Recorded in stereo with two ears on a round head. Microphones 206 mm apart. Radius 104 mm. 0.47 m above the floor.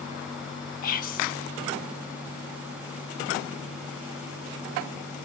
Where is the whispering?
40° left (ahead or behind), 0.8 m.